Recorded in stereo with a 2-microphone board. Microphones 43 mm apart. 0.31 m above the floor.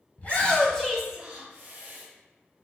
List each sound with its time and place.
0.2 s a shout: 45° left (ahead or behind), 1.3 m; by 2.0 s 50° right (ahead or behind), 1.4 m